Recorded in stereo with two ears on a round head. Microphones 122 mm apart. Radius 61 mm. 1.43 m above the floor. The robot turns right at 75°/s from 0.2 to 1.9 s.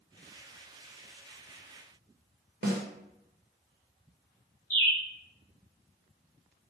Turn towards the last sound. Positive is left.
turn(degrees=15)  # may be behind; listen again after turning